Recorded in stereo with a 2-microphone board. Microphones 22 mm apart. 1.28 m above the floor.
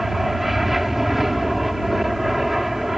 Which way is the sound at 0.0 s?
5° right (ahead or behind).